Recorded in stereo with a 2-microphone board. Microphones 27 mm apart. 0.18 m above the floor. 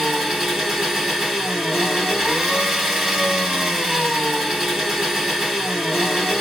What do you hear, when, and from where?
0.0 s an engine running: 15° right (ahead or behind), 2 m